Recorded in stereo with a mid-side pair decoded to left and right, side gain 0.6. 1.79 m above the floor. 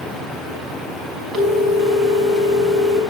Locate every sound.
1.3 s a phone ringing: 45° right, 5 m